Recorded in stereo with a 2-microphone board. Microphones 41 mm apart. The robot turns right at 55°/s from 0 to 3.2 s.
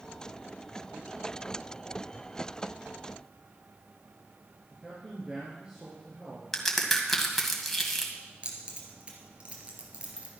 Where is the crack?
5° left (ahead or behind), 1.8 m.